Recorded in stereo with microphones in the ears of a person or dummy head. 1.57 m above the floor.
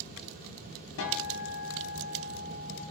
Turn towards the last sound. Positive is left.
turn(degrees=65)  # may be behind; listen again after turning